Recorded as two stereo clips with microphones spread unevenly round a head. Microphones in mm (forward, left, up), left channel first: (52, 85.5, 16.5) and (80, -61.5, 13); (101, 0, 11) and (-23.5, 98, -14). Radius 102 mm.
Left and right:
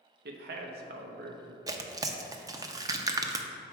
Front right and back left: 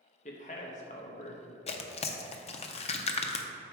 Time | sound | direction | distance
0.2 | a man speaking | 100° right | 0.7 m
1.7 | tearing paper | 20° right | 0.5 m